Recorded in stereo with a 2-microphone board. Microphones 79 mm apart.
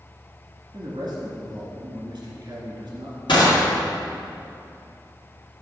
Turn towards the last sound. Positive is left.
turn(degrees=80)